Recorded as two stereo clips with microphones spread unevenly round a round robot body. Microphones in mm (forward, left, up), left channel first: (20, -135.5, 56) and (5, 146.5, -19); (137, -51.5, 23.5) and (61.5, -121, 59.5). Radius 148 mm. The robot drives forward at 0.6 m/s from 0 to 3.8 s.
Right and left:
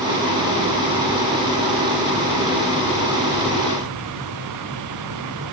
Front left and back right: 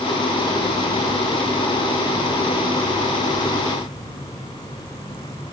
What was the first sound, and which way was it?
Only background noise.